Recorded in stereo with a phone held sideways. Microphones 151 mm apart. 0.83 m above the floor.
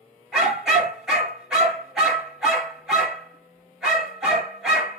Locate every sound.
0.3 s a dog barking: 5° right (ahead or behind), 3 m